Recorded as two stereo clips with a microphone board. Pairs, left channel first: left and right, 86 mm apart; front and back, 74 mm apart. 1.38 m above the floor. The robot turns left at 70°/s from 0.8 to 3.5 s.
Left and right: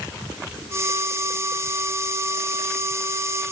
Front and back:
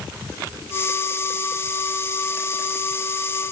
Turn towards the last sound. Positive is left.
No sound to turn to.